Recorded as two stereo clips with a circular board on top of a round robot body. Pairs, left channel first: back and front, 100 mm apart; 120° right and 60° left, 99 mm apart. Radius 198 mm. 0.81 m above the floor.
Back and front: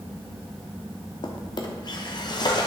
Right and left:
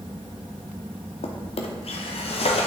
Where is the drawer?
135° right, 1.1 m.